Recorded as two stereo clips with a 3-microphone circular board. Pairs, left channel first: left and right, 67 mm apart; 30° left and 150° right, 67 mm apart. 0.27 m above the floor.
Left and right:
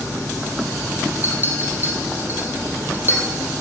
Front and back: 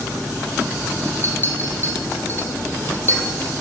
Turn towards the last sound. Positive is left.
turn(degrees=-30)